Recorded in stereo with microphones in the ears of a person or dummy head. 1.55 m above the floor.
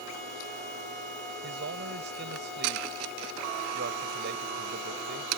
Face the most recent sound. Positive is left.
turn(degrees=-55)  # may be behind; listen again after turning